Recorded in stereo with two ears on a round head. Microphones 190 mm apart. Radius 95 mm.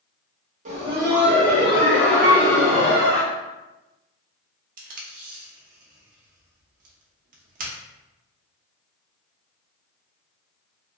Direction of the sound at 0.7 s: 35° right (ahead or behind).